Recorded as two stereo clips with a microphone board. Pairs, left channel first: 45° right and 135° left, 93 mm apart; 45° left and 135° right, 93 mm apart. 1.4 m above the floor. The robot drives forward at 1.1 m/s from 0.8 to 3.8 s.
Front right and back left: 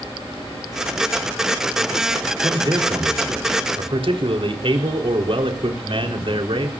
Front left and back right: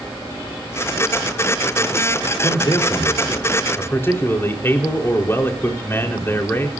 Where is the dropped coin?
No dropped coin in this recording.